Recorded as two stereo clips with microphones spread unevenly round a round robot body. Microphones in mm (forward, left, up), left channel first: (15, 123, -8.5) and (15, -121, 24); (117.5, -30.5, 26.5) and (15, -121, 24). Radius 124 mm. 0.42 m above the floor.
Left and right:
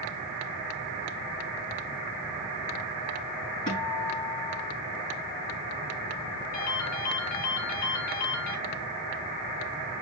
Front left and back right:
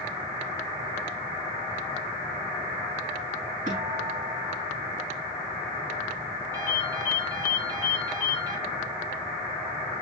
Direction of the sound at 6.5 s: 145° left.